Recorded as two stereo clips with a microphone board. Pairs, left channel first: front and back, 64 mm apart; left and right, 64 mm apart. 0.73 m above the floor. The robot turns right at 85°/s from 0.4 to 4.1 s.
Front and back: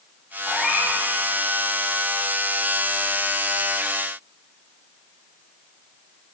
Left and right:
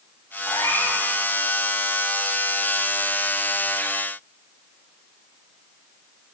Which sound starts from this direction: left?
A cat meowing, at 0.5 s.